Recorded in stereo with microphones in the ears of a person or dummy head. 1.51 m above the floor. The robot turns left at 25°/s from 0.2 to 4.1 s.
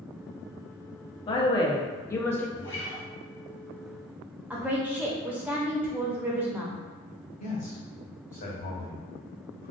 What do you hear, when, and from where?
1.3 s a woman speaking: 30° left (ahead or behind), 0.6 m; by 2.5 s 10° left (ahead or behind), 0.6 m
2.6 s a guitar: 5° left (ahead or behind), 0.5 m; by 3.1 s 15° left (ahead or behind), 0.5 m
4.5 s a woman speaking: 10° right (ahead or behind), 0.6 m
7.4 s a man speaking: 30° left (ahead or behind), 0.9 m